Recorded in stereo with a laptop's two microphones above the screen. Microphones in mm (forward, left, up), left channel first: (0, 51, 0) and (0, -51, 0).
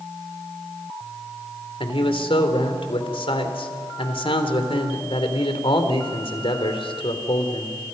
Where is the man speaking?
70° left (ahead or behind), 3 m.